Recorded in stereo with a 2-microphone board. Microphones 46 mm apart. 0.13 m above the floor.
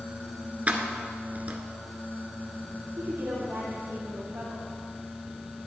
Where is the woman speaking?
70° right (ahead or behind), 3.5 m.